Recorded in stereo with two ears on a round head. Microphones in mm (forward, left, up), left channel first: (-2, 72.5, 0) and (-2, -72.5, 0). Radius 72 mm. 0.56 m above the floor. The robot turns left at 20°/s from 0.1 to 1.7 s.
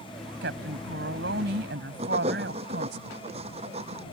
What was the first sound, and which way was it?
A woman speaking, 70° right (ahead or behind).